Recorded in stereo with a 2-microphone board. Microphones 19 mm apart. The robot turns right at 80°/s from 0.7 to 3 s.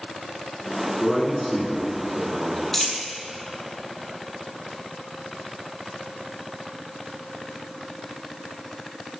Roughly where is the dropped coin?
Left.